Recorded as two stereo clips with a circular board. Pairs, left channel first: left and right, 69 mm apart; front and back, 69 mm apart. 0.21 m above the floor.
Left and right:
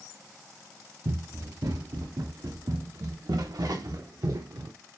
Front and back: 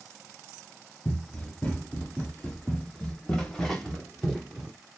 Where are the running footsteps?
70° right, 4.5 m; by 4.7 s 90° right, 2.5 m.